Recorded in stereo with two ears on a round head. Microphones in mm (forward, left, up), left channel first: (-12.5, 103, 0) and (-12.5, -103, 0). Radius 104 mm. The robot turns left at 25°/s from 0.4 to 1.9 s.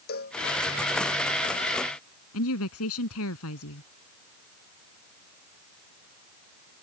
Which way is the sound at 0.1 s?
45° left (ahead or behind).